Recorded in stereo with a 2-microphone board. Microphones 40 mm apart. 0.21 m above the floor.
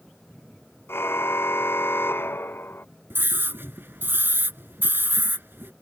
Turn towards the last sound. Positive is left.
turn(degrees=-65)  # may be behind; listen again after turning